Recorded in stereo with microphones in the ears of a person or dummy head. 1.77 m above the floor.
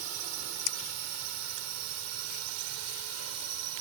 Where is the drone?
85° right.